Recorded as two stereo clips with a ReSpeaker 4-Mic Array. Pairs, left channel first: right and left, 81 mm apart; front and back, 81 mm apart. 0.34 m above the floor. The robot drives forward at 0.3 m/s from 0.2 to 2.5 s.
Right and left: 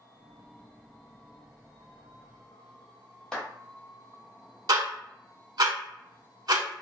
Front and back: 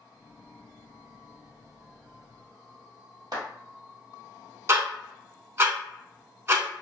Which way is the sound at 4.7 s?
125° left.